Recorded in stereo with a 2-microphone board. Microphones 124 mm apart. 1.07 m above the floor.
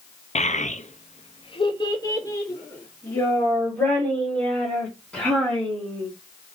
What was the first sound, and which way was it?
A child speaking, 70° left (ahead or behind).